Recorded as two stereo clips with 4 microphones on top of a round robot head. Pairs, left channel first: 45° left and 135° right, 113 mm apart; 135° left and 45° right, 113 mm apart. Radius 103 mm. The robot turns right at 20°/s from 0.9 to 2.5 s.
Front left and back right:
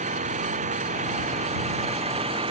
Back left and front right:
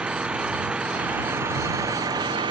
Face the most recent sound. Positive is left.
turn(degrees=-95)